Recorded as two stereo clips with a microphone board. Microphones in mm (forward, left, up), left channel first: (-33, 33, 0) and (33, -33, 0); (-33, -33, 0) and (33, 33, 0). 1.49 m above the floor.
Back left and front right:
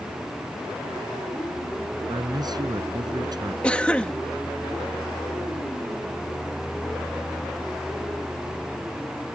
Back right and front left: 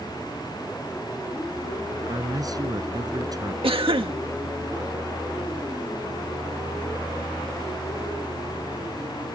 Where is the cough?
55° left.